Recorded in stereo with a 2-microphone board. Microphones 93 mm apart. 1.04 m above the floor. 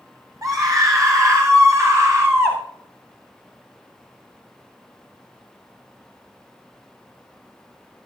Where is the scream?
40° right (ahead or behind), 7.5 m; by 2.6 s 30° right (ahead or behind), 5.5 m.